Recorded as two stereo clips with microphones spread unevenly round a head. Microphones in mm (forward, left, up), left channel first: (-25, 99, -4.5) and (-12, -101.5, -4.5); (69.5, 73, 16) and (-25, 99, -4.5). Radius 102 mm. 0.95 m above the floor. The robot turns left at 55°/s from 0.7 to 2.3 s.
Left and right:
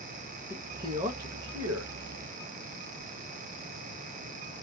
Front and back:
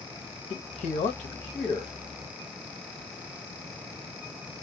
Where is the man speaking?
10° right, 0.8 m; by 1.9 s 75° right, 0.8 m.